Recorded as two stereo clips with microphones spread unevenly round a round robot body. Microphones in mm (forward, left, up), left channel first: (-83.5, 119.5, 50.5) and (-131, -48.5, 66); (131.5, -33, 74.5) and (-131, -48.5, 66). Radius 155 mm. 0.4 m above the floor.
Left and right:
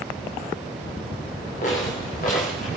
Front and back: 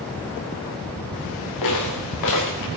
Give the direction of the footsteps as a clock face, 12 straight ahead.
12 o'clock.